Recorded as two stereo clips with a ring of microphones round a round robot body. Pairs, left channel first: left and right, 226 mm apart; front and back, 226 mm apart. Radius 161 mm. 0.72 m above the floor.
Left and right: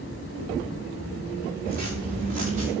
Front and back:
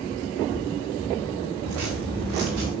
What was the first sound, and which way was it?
Footsteps, 155° right.